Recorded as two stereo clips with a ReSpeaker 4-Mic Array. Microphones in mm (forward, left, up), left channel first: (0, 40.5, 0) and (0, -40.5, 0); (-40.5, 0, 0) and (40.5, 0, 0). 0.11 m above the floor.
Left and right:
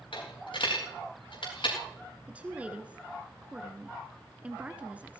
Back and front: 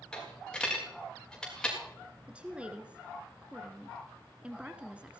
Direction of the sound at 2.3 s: 50° right.